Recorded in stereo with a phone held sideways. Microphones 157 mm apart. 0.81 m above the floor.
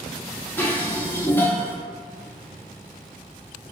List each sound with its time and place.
0.6 s dishes clattering: 10° left (ahead or behind), 0.6 m